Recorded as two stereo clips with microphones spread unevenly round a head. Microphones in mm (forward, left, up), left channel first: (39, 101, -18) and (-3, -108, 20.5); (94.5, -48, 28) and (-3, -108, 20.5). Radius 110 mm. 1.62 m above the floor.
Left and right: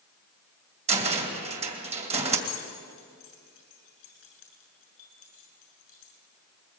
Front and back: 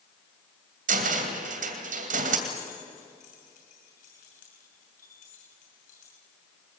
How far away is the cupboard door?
About 2.5 m.